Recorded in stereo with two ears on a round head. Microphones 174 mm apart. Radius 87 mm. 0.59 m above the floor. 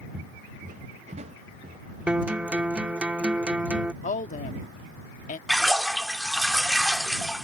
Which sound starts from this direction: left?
A woman speaking, at 4.0 s.